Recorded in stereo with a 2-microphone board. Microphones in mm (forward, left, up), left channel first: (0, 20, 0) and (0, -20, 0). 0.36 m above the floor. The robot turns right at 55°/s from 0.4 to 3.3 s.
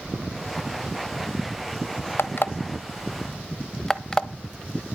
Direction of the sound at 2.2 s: 65° left (ahead or behind).